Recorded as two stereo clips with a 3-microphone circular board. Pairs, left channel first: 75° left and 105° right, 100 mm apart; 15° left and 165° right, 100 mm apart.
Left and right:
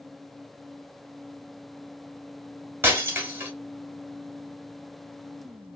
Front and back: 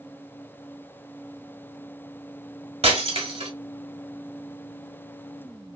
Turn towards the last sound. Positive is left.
turn(degrees=-170)